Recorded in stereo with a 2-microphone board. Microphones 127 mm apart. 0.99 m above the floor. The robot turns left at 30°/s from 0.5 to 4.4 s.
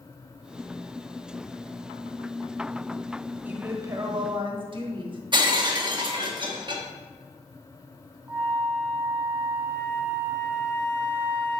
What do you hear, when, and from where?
3.5 s a woman speaking: 15° right (ahead or behind), 1.3 m; by 5.2 s 40° right (ahead or behind), 1.3 m
5.3 s breaking glass: 35° right (ahead or behind), 1.0 m
8.3 s a flute: 20° right (ahead or behind), 0.9 m